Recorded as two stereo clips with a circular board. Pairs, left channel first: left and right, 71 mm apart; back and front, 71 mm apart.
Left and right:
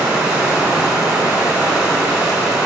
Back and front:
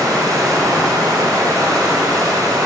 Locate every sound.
0.0 s running water: 15° right, 0.9 m